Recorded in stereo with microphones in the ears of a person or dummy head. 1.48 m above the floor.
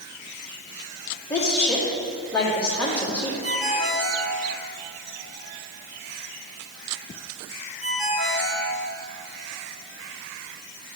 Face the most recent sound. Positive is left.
turn(degrees=-60)  # may be behind; listen again after turning